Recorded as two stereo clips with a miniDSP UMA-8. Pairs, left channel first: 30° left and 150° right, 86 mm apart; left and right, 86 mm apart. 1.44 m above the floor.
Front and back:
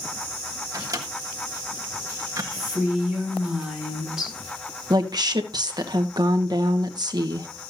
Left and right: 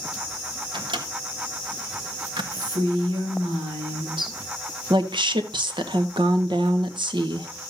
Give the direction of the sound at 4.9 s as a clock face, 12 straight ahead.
4 o'clock.